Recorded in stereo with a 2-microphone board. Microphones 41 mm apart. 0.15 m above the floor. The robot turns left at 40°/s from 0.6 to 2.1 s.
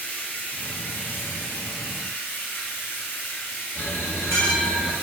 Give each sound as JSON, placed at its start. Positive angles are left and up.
{"t": 0.0, "sound": "running water", "azimuth_deg": 135, "distance_m": 1.0}
{"t": 3.8, "sound": "a bell", "side_deg": 70, "distance_m": 2.0}